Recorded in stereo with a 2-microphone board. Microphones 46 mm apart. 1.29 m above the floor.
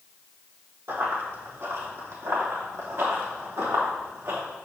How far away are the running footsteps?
About 3 m.